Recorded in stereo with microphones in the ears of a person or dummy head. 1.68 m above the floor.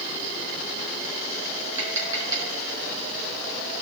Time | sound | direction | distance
1.8 | tapping | 15° right (ahead or behind) | 3.5 m